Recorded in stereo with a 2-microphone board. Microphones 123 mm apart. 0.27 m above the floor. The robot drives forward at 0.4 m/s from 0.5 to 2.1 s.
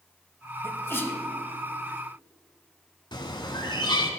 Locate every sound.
0.6 s a sneeze: 20° left (ahead or behind), 1.2 m
3.1 s a bird: 40° left (ahead or behind), 1.2 m